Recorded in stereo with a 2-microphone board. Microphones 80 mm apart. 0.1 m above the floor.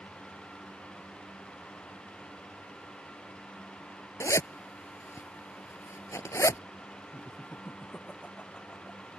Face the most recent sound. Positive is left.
turn(degrees=15)  # may be behind; listen again after turning